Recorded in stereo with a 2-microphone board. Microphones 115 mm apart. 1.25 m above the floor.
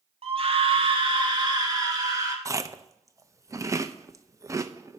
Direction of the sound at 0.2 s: 55° right (ahead or behind).